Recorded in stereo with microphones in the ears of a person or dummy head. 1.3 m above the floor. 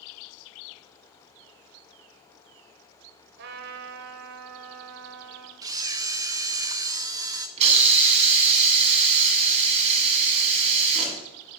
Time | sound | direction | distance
3.4 | a trumpet | 60° right (ahead or behind) | 1.3 m
5.6 | a camera shutter | 20° right (ahead or behind) | 0.6 m
7.6 | a hiss | 35° right (ahead or behind) | 1.9 m